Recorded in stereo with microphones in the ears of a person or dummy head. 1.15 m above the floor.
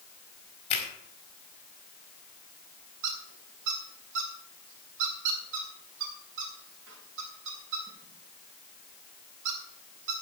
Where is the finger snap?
40° left (ahead or behind), 4.5 m.